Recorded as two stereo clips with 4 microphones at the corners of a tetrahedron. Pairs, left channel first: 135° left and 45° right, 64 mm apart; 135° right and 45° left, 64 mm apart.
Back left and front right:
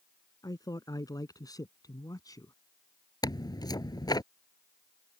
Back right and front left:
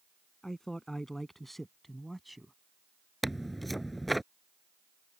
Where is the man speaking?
145° left; by 2.5 s 135° left.